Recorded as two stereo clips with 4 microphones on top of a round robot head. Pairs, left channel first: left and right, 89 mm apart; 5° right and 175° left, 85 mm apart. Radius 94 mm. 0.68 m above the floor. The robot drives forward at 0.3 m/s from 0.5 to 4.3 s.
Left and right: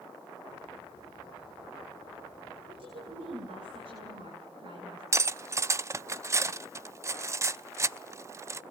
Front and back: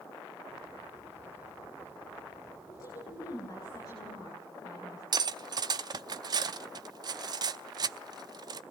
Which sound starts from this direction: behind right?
Cutlery clinking, at 5.1 s.